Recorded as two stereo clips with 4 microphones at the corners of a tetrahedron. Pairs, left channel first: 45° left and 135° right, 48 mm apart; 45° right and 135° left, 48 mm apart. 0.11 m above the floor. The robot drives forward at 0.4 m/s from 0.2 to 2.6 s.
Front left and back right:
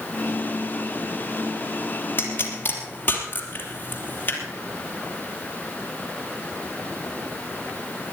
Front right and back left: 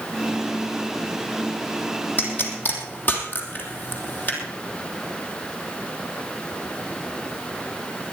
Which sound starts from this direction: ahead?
A pop, at 2.2 s.